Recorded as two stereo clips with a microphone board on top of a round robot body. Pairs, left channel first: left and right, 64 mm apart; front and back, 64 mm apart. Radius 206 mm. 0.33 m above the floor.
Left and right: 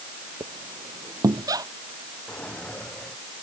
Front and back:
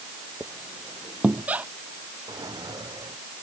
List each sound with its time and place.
0.4 s a squeak: 115° right
2.3 s a drawer: 165° left